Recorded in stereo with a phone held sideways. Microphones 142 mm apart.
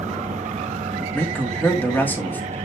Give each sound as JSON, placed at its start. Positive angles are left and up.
{"t": 0.0, "sound": "a fan", "side_deg": -55, "distance_m": 2.5}
{"t": 1.1, "sound": "a man speaking", "side_deg": 15, "distance_m": 2.5}